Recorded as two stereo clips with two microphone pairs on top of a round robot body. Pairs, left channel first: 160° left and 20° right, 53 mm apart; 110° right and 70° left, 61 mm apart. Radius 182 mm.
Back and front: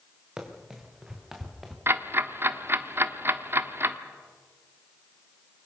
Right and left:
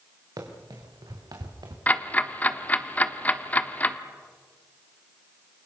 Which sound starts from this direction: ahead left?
Running footsteps, at 0.4 s.